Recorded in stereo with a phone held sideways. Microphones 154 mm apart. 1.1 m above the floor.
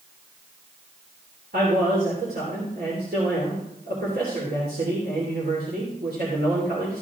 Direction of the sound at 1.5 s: 85° right.